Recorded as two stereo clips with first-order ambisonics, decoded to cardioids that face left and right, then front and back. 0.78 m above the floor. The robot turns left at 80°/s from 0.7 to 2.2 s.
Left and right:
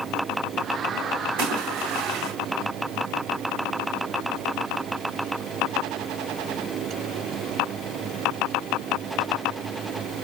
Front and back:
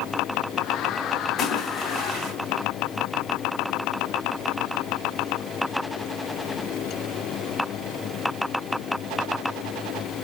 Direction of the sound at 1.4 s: 65° right.